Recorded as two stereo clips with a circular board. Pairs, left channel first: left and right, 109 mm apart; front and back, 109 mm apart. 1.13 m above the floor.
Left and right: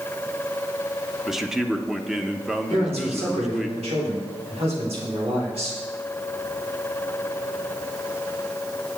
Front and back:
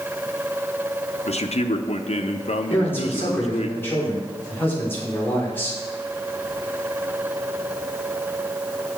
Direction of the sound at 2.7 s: 70° right.